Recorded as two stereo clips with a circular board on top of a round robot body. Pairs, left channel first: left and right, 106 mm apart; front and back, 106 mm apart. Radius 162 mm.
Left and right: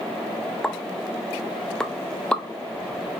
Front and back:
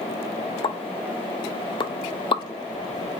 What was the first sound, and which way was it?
A pop, 10° left.